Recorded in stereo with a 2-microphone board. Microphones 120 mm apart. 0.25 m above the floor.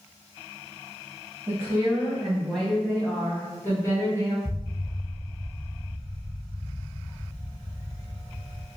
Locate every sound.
1.5 s a woman speaking: 25° right (ahead or behind), 1.1 m; by 4.3 s 30° left (ahead or behind), 2 m
4.5 s an explosion: 5° left (ahead or behind), 0.5 m